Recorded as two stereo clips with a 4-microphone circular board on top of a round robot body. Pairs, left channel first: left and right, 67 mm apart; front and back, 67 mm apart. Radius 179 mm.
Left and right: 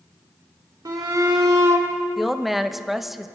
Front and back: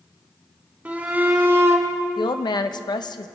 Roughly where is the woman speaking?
Ahead.